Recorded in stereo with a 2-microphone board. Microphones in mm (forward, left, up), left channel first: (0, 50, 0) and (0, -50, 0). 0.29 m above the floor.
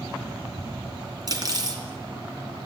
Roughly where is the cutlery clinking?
Right.